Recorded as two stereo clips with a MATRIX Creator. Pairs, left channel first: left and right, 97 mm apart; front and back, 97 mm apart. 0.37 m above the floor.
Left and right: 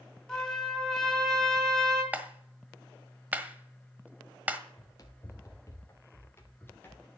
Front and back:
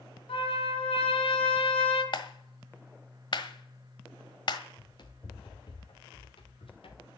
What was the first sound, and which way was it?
A trumpet, 5° left.